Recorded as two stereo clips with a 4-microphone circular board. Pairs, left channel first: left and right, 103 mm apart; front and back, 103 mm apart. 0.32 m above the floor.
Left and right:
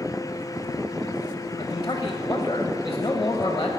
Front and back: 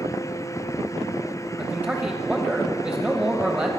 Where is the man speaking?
115° left, 1.3 m.